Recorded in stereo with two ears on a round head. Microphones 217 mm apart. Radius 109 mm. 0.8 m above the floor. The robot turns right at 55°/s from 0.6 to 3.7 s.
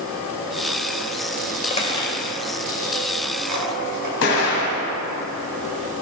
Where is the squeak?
30° left (ahead or behind), 2.5 m; by 4.1 s 75° right (ahead or behind), 2.5 m.